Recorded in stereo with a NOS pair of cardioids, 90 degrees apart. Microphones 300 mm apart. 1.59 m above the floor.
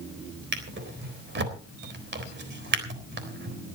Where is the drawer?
40° right, 3.5 m.